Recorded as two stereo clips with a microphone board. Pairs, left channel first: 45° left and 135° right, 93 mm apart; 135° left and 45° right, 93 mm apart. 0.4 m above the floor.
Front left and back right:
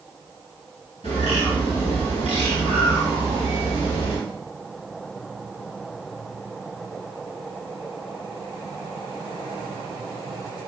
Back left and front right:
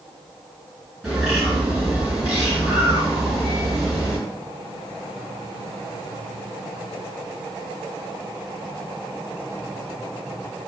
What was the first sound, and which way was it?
A bird, 45° left.